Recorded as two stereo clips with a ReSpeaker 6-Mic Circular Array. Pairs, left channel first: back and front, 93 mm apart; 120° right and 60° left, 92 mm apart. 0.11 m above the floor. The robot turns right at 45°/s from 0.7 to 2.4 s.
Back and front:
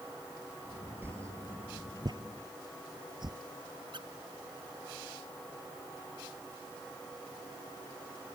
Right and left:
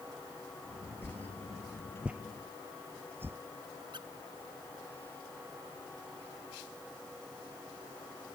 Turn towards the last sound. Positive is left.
turn(degrees=30)